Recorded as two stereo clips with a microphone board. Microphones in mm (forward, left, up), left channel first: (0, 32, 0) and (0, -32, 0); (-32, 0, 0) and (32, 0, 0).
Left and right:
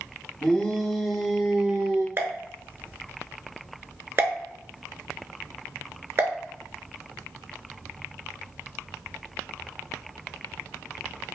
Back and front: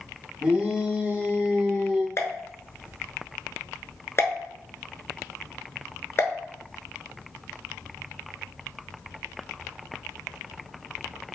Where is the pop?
135° right, 0.8 m.